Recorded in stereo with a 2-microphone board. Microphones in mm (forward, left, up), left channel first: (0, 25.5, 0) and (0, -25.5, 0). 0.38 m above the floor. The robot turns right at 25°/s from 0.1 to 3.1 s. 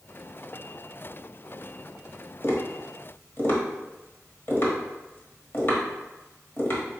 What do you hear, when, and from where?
2.4 s tapping: 55° left (ahead or behind), 1.1 m; by 7.0 s 45° left (ahead or behind), 1.1 m